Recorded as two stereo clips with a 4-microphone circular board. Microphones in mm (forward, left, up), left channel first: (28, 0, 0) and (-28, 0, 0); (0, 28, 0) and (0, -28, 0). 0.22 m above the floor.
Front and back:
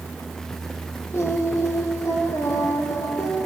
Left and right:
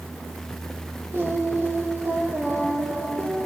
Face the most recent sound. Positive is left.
turn(degrees=-40)